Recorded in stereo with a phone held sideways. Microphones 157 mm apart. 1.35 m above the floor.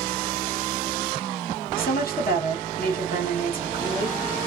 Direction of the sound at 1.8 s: 70° left (ahead or behind).